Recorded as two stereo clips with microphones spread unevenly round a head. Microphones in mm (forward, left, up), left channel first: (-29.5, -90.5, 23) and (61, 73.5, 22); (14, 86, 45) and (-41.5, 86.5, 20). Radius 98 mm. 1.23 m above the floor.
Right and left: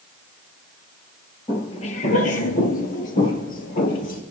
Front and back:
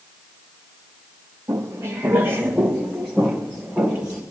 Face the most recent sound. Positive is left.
turn(degrees=-75)